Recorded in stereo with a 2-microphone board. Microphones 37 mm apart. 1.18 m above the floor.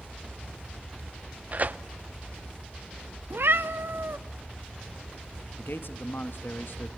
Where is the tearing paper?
40° right (ahead or behind), 0.6 m.